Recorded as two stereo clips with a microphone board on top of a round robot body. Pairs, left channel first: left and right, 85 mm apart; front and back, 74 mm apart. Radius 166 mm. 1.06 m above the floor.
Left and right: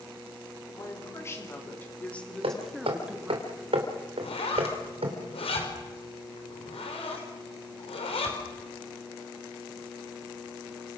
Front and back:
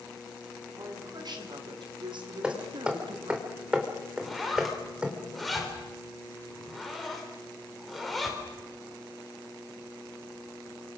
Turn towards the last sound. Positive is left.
turn(degrees=90)